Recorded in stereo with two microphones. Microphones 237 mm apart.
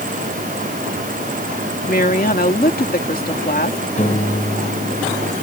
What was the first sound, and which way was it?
A woman speaking, 40° left (ahead or behind).